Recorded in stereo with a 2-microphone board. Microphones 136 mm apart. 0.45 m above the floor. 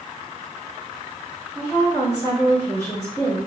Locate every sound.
1.6 s a woman speaking: 20° left (ahead or behind), 2 m